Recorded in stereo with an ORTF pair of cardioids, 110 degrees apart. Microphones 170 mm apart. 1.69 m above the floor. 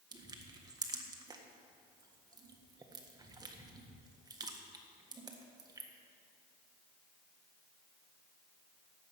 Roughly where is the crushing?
Ahead.